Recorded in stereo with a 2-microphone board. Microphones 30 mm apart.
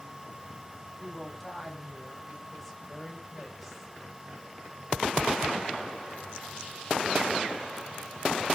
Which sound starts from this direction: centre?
A woman speaking, at 1.0 s.